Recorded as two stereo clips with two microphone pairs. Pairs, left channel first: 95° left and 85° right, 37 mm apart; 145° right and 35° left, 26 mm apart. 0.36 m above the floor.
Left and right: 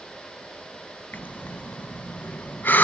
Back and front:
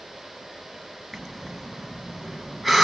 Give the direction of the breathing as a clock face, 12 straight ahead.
8 o'clock.